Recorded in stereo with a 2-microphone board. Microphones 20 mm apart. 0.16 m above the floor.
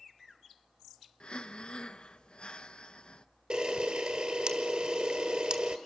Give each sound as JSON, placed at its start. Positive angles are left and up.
{"t": 1.2, "sound": "breathing", "side_deg": 55, "distance_m": 0.6}
{"t": 3.5, "sound": "a camera shutter", "side_deg": -50, "distance_m": 1.5}